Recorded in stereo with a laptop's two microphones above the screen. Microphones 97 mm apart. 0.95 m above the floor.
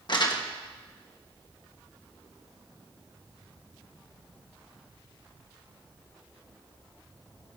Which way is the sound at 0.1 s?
50° left (ahead or behind).